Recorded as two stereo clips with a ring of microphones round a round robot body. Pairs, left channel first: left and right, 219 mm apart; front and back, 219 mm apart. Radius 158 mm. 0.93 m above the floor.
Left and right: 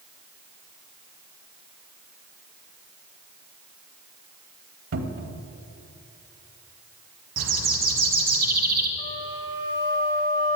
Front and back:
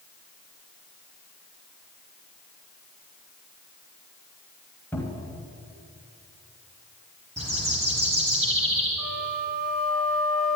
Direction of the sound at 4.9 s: 85° right.